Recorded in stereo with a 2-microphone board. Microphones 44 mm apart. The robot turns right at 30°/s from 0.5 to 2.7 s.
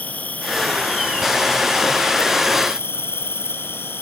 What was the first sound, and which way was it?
An insect, 40° left.